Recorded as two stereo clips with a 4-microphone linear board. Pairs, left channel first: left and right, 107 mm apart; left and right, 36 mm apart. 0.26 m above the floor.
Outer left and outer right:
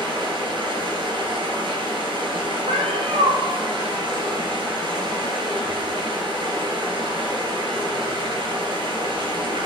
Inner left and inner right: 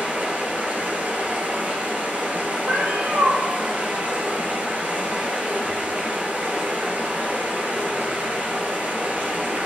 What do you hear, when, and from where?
0.0 s running water: 50° right (ahead or behind), 1.7 m
2.7 s a cat meowing: 75° right (ahead or behind), 1.0 m